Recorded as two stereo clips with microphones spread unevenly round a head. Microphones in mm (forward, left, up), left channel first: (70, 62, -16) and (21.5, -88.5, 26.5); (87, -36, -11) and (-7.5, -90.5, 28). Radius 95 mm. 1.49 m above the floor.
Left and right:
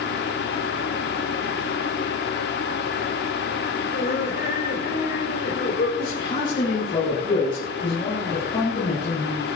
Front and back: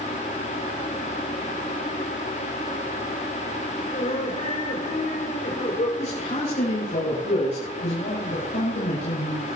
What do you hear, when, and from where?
3.9 s laughter: 40° left, 5.5 m
6.0 s a man speaking: 10° left, 9 m